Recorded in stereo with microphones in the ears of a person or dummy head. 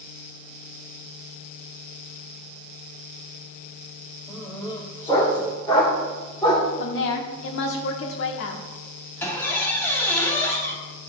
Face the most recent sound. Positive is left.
turn(degrees=10)  # may be behind; listen again after turning